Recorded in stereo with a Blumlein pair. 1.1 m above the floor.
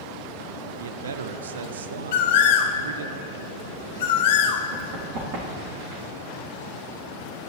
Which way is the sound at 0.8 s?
65° right.